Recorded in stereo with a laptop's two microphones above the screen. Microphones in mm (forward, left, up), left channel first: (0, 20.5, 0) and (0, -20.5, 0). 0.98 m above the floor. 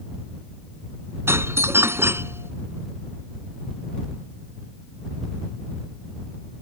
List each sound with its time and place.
1.3 s a doorbell: 85° right